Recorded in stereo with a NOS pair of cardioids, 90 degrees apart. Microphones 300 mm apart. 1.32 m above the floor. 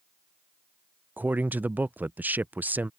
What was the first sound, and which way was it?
A man speaking, 5° right.